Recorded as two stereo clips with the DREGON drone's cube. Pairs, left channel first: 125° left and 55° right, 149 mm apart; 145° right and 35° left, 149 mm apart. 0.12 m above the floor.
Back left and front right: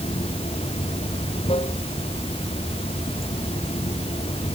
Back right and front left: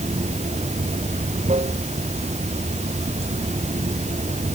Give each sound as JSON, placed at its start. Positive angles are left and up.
{"t": 0.0, "sound": "running water", "azimuth_deg": 75}